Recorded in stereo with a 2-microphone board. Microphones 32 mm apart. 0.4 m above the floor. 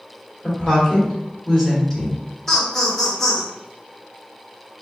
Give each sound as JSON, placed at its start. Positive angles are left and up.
{"t": 0.4, "sound": "a woman speaking", "side_deg": 20, "distance_m": 1.3}
{"t": 2.5, "sound": "laughter", "side_deg": 15, "distance_m": 0.8}